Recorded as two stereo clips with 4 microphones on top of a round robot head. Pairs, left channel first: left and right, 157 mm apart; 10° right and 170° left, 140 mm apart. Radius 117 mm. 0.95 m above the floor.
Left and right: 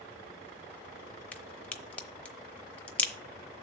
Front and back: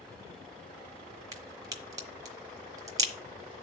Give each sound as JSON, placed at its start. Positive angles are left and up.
{"t": 1.3, "sound": "a crack", "azimuth_deg": 160, "distance_m": 0.7}